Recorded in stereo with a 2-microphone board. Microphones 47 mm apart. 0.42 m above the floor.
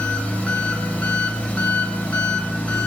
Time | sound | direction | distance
0.0 | an engine running | 30° left (ahead or behind) | 0.8 m